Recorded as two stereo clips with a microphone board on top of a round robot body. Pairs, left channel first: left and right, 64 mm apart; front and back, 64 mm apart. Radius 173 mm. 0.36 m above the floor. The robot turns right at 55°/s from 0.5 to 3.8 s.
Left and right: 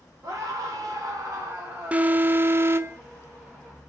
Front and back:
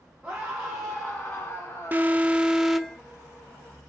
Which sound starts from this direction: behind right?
An alarm, at 1.9 s.